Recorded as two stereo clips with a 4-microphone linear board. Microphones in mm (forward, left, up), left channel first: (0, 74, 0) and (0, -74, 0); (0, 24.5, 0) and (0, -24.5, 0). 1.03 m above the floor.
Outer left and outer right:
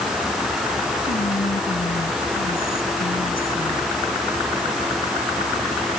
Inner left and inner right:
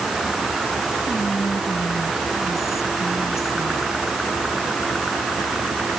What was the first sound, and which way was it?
Whispering, 80° left.